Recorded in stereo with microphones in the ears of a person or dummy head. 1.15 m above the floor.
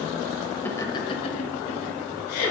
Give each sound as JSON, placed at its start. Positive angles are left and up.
{"t": 0.7, "sound": "laughter", "side_deg": 10, "distance_m": 0.9}